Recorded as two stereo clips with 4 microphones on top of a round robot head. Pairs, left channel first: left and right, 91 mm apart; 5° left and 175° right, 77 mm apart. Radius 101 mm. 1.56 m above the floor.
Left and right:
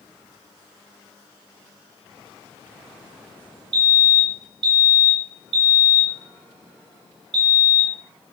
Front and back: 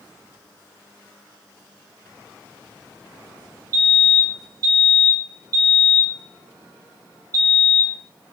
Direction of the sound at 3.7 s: 125° right.